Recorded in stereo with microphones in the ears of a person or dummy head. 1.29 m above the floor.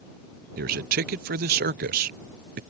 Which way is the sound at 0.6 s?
45° right (ahead or behind).